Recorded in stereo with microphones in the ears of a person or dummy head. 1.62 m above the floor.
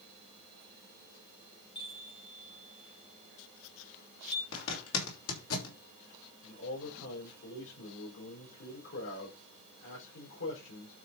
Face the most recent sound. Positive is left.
turn(degrees=80)